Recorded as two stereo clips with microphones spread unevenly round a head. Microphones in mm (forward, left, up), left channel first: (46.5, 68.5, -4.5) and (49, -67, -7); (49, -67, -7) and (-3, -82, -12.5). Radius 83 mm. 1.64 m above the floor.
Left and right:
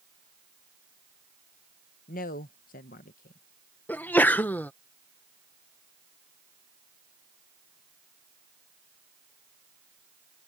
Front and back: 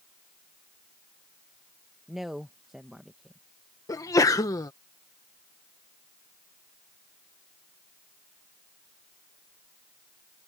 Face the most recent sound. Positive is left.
turn(degrees=15)